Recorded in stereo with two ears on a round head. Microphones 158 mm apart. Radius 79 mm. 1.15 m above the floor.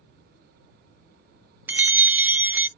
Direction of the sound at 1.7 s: 10° right (ahead or behind).